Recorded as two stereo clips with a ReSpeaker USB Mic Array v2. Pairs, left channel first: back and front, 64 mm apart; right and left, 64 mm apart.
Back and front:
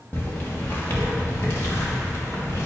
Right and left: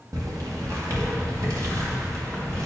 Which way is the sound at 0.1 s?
115° left.